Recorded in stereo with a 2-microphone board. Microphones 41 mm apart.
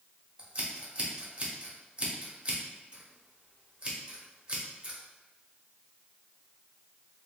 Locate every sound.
0.4 s scissors: 25° right (ahead or behind), 1.0 m